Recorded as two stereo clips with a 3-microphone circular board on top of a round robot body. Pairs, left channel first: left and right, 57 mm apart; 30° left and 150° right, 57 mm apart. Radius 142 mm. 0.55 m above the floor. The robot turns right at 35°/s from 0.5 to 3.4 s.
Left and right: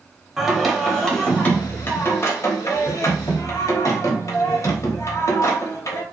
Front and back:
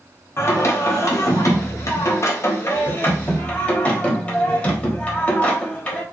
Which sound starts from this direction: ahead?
Singing, at 0.4 s.